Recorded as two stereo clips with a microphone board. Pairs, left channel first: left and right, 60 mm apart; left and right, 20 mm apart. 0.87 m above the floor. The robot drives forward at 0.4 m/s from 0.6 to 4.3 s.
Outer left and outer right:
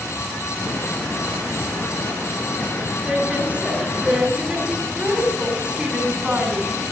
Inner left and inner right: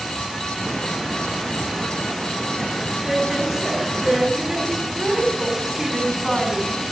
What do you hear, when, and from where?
3.0 s a woman speaking: 20° right (ahead or behind), 7 m; by 6.8 s 15° right (ahead or behind), 7.5 m